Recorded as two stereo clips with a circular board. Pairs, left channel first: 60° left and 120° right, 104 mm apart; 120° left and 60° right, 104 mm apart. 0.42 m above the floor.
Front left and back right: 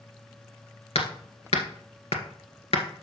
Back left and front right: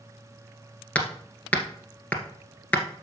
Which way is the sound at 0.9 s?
45° left.